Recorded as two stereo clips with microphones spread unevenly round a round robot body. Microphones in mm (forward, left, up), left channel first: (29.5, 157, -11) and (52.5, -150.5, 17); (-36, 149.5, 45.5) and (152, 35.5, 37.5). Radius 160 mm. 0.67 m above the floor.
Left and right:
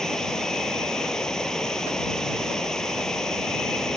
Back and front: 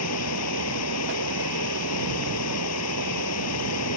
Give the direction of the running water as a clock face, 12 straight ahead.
6 o'clock.